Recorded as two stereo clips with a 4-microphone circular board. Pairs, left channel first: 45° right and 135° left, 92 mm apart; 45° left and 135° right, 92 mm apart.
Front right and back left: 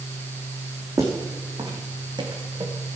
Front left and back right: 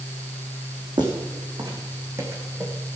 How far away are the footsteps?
About 4.5 m.